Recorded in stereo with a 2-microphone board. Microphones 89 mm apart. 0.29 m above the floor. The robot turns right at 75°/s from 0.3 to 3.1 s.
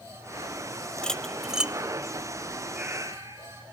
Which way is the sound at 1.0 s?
10° left (ahead or behind).